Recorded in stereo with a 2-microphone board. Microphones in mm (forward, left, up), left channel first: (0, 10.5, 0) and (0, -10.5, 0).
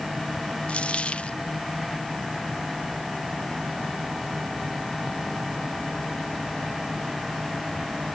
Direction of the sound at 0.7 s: 85° left.